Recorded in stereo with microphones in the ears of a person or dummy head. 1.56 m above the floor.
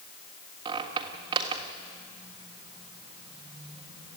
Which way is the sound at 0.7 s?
25° right (ahead or behind).